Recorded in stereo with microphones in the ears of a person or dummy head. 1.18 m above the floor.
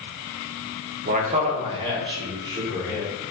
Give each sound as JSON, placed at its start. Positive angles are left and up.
{"t": 1.1, "sound": "a man speaking", "side_deg": -45, "distance_m": 0.7}